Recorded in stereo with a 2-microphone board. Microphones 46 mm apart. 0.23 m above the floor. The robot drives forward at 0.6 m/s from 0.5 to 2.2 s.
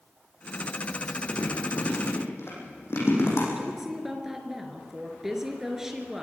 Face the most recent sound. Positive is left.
turn(degrees=-10)  # may be behind; listen again after turning